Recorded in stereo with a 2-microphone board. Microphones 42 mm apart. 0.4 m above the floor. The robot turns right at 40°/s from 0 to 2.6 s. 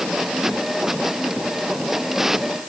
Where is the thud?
No thud in this recording.